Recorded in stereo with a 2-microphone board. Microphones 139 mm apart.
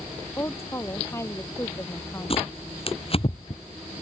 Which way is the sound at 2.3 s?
45° left (ahead or behind).